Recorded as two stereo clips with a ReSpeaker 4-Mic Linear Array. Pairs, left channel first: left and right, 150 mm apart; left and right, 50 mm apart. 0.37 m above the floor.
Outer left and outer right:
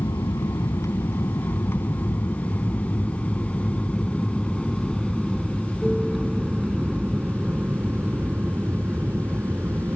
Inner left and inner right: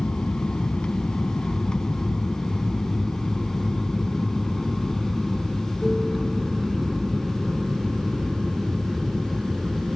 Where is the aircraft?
25° left (ahead or behind); by 10.0 s 15° right (ahead or behind).